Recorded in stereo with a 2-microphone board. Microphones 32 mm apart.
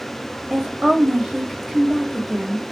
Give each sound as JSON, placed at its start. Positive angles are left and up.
{"t": 0.5, "sound": "a woman speaking", "side_deg": -20, "distance_m": 1.0}